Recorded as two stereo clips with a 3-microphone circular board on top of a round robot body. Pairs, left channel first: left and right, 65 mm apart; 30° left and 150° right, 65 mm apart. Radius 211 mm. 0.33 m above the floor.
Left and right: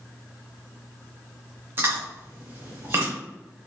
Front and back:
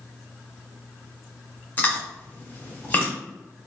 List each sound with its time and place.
1.8 s chewing: 35° right, 1.1 m